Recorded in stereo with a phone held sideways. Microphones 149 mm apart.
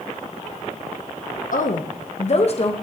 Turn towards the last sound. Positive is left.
turn(degrees=40)  # may be behind; listen again after turning